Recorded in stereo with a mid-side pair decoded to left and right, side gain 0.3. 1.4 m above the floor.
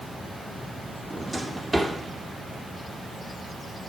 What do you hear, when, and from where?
1.1 s a drawer: 25° right, 2 m